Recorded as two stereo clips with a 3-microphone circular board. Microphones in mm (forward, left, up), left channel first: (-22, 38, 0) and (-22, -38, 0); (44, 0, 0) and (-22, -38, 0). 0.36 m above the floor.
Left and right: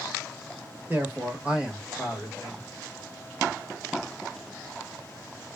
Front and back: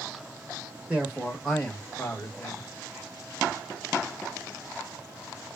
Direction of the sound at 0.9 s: 95° right.